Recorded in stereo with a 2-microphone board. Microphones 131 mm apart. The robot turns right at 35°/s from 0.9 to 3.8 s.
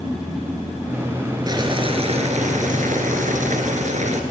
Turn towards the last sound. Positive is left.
turn(degrees=-65)